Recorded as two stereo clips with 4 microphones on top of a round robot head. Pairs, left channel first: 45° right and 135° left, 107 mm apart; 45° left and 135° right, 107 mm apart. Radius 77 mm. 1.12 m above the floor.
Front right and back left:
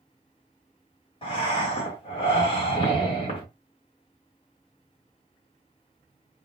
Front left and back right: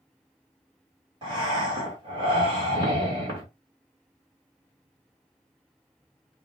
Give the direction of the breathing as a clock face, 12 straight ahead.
3 o'clock.